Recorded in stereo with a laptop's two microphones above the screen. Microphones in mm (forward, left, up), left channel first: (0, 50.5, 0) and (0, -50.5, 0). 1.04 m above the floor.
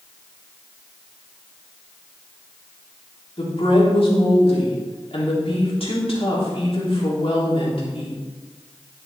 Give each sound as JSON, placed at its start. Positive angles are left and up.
{"t": 3.4, "sound": "a woman speaking", "side_deg": 75, "distance_m": 3.0}